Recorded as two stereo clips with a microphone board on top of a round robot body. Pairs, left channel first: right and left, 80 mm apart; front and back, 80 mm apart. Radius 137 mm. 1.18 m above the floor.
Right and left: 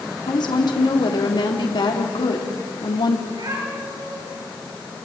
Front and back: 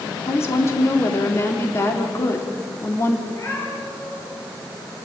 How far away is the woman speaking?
About 3 m.